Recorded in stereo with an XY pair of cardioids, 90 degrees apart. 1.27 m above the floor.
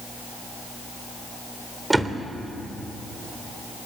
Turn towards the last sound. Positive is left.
turn(degrees=-15)